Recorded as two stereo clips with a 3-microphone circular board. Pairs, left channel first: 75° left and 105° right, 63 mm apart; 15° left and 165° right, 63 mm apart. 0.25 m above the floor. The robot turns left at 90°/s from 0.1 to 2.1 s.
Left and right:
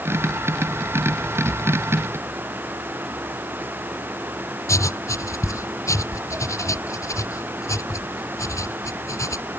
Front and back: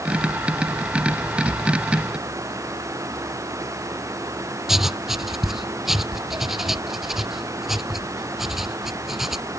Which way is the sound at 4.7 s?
110° left.